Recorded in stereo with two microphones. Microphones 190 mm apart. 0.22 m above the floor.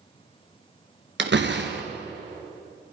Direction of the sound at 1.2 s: 70° right (ahead or behind).